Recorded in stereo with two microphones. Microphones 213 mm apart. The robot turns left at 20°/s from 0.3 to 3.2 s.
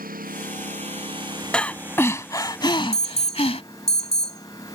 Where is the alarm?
30° left (ahead or behind).